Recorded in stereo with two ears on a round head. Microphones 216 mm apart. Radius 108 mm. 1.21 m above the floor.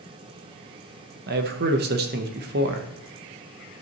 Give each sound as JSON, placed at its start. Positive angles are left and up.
{"t": 1.3, "sound": "a man speaking", "side_deg": -40, "distance_m": 1.0}